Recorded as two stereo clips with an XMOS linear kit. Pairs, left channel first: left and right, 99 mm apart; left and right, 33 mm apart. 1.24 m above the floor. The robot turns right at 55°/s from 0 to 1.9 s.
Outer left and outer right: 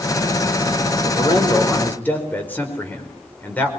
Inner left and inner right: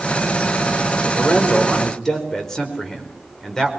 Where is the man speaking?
120° left, 5 m; by 3.7 s 165° left, 5 m.